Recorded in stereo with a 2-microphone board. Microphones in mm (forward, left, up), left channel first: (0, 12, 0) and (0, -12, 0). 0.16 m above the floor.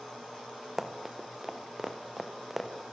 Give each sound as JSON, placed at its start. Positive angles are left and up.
{"t": 0.8, "sound": "running footsteps", "side_deg": -15, "distance_m": 3.0}